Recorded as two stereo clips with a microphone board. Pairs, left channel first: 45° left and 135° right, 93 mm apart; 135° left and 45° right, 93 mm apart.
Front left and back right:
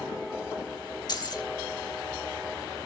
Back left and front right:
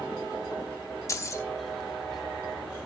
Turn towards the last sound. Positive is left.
turn(degrees=80)